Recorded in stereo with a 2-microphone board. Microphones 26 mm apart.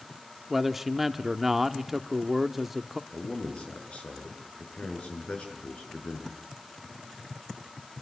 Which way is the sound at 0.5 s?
10° right (ahead or behind).